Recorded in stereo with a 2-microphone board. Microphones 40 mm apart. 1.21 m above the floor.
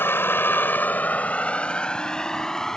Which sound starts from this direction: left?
A vehicle, at 0.0 s.